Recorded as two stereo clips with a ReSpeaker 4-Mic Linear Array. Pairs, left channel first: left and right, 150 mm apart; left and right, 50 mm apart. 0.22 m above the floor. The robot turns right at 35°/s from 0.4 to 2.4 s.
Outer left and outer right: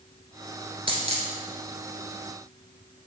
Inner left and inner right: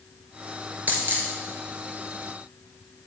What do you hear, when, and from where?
0.9 s a dropped coin: 35° right (ahead or behind), 1.3 m; by 1.3 s 50° right (ahead or behind), 1.3 m